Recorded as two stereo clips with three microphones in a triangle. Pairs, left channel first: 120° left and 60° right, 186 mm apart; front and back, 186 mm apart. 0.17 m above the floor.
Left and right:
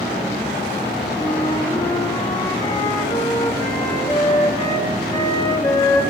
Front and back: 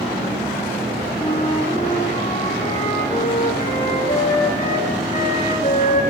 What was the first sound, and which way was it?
A flute, 55° left.